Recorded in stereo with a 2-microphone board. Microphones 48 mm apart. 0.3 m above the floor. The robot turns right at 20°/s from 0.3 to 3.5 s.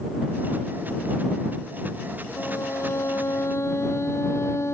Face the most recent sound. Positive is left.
turn(degrees=70)  # may be behind; listen again after turning